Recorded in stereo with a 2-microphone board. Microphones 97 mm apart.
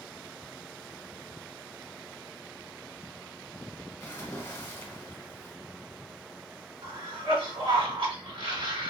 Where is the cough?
75° right (ahead or behind), 1.7 m.